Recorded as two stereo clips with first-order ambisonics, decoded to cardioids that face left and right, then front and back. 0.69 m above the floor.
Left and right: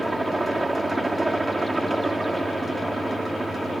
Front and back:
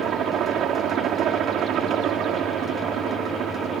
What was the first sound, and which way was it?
A helicopter, 165° right.